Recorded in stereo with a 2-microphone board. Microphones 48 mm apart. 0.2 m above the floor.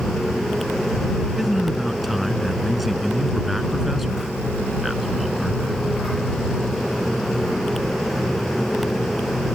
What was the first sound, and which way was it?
A man speaking, centre (ahead or behind).